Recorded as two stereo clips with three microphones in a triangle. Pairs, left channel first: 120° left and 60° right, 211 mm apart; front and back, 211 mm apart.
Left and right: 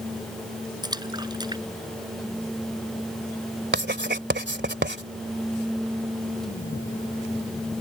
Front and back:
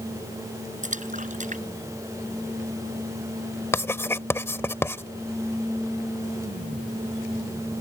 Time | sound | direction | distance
0.8 | a splash | 130° right | ?
3.7 | writing | 75° right | ?